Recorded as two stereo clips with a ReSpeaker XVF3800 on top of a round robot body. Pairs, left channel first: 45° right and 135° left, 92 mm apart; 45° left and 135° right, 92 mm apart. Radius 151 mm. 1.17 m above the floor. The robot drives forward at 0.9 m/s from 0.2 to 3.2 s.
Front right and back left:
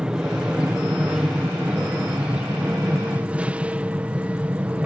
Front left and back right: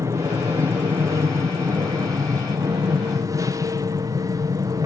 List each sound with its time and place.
0.0 s an aircraft: 150° right; by 4.9 s 155° right